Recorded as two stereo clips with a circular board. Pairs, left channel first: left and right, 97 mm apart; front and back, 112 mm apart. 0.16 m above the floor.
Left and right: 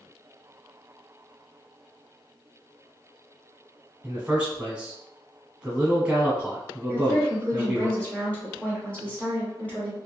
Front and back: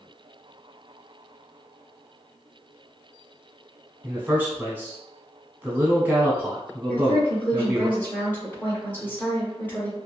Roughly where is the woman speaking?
Ahead left.